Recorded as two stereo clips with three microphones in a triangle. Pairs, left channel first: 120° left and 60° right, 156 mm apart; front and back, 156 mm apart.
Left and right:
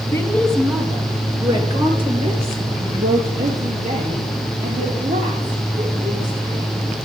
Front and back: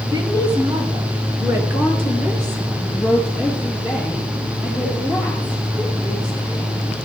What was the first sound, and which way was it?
A woman speaking, 165° left.